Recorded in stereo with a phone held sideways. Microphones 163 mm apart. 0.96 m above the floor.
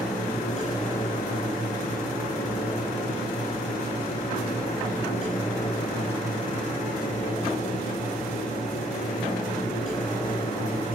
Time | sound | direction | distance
0.0 | a fan | 50° left (ahead or behind) | 7 m